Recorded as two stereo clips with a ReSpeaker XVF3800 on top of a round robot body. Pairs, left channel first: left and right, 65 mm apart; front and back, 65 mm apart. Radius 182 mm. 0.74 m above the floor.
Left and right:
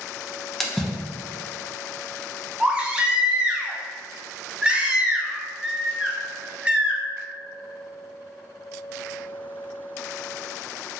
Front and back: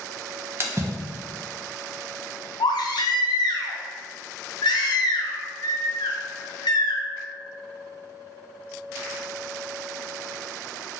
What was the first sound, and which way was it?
A splash, 175° left.